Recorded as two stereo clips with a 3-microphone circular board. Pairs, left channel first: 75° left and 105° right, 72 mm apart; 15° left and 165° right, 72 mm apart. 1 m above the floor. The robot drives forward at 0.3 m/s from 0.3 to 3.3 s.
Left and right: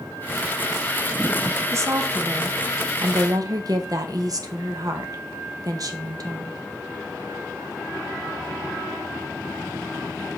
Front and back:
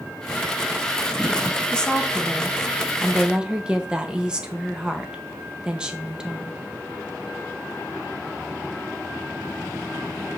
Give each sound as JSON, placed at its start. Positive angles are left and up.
{"t": 1.7, "sound": "a woman speaking", "azimuth_deg": -60, "distance_m": 1.1}